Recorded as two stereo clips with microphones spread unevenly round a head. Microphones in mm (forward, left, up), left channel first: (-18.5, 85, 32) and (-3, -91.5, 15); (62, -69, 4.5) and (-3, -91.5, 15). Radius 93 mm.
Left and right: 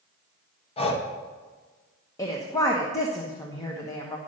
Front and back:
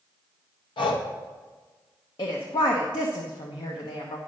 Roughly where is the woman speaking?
Ahead.